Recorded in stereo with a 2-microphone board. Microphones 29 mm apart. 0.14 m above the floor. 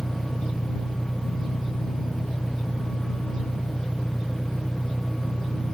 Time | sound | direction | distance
0.0 | an engine running | 30° left (ahead or behind) | ?